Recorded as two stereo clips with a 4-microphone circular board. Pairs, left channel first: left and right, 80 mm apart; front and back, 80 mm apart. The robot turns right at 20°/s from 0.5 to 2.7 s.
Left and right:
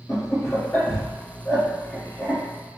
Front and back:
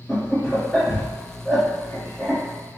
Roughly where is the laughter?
Left.